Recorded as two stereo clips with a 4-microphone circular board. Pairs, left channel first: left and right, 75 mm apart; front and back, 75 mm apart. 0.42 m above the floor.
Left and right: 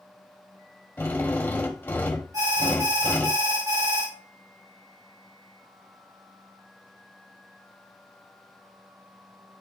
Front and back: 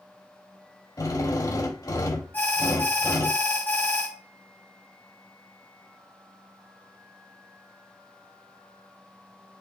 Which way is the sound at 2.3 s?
60° right.